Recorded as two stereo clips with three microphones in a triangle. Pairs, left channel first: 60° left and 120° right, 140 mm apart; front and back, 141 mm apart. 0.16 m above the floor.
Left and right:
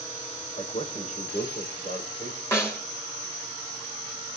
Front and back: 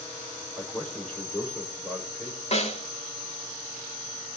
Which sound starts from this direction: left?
A man speaking, at 0.6 s.